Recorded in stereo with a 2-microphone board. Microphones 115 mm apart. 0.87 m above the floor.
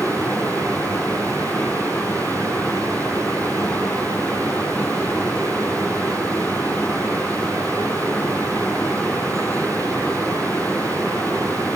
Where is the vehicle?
15° left (ahead or behind).